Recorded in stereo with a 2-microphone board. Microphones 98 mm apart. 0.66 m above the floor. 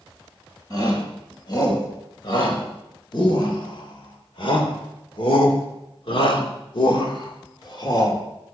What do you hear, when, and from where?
0.7 s a shout: 45° left (ahead or behind), 4.5 m